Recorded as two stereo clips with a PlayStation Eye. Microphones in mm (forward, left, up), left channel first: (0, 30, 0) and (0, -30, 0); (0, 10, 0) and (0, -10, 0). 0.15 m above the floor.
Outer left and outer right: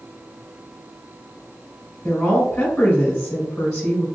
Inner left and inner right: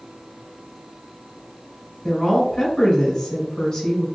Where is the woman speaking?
10° left (ahead or behind), 1.5 m.